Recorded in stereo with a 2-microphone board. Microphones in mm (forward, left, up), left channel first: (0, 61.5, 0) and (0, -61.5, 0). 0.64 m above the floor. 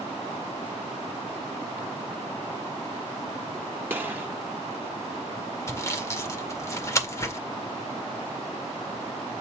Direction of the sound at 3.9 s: 15° right (ahead or behind).